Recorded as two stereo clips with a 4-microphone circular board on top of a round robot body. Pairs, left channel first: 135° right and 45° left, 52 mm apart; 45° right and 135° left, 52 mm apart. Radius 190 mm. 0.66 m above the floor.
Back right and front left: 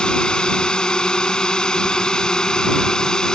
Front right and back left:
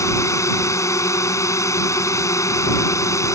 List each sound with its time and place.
0.0 s a drone: 65° right; by 3.4 s 60° right